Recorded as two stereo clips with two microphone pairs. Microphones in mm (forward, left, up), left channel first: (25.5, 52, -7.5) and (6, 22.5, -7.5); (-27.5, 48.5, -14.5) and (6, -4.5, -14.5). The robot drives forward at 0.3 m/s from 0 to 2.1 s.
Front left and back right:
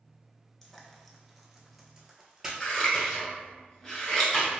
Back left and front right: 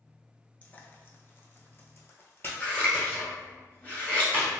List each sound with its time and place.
0.6 s frying: 120° left, 0.5 m; by 3.2 s 160° left, 0.7 m
2.6 s scissors: 100° left, 1.3 m